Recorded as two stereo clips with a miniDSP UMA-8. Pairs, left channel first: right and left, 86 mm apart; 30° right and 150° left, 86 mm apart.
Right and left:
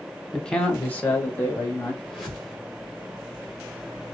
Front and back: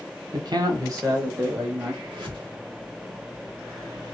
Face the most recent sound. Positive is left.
turn(degrees=180)